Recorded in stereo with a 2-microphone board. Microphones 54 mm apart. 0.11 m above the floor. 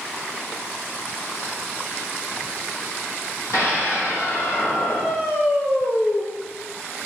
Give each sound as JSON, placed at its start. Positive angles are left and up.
{"t": 3.5, "sound": "a scream", "side_deg": 65, "distance_m": 4.5}